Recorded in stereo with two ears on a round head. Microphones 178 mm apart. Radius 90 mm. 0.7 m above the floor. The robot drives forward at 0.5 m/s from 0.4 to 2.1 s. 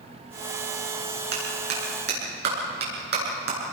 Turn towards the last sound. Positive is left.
turn(degrees=-55)  # may be behind; listen again after turning